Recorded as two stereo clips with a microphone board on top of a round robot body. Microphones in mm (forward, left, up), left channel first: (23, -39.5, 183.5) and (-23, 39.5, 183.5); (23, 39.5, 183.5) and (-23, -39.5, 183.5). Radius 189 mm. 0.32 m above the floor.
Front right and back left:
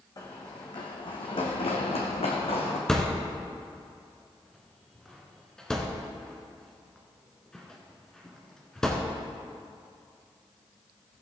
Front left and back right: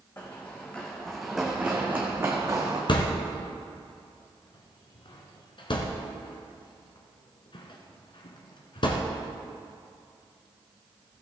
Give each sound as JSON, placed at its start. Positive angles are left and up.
{"t": 0.2, "sound": "running footsteps", "azimuth_deg": -5, "distance_m": 2.0}
{"t": 2.9, "sound": "a thud", "azimuth_deg": 25, "distance_m": 1.3}